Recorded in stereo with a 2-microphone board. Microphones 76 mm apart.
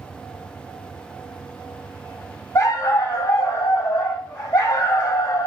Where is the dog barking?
40° left (ahead or behind), 2.5 m.